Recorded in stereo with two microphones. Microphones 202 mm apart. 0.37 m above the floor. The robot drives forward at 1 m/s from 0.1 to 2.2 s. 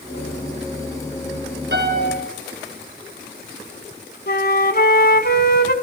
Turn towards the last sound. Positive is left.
turn(degrees=60)  # may be behind; listen again after turning